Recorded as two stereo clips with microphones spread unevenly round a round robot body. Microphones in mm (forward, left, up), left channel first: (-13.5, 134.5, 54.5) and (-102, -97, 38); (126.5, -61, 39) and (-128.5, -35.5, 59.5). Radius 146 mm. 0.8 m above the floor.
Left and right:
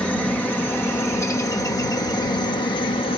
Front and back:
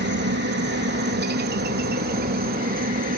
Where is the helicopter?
155° left; by 3.2 s 130° left.